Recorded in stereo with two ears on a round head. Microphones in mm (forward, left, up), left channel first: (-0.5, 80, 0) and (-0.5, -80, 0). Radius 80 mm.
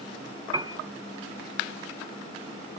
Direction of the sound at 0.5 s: 25° right (ahead or behind).